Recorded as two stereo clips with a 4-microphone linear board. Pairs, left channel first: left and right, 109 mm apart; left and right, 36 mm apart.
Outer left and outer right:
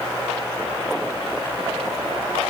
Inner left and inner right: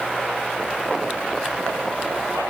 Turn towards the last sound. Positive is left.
No sound to turn to.